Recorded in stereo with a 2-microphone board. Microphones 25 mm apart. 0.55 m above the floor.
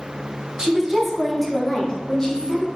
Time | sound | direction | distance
0.6 | a woman speaking | 25° right (ahead or behind) | 0.7 m